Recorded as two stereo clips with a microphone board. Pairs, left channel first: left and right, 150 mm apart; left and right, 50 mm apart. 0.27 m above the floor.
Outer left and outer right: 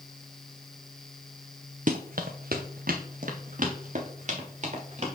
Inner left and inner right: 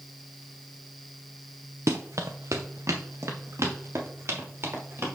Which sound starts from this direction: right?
Running footsteps, at 1.9 s.